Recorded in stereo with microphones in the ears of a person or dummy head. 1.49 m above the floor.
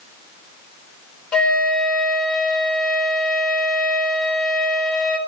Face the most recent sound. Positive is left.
turn(degrees=10)  # may be behind; listen again after turning